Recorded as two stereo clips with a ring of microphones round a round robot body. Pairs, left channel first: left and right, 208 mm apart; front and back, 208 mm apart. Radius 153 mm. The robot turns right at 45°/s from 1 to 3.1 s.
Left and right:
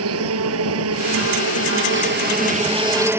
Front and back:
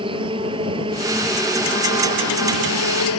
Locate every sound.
0.0 s an insect: 105° right; by 3.2 s 10° right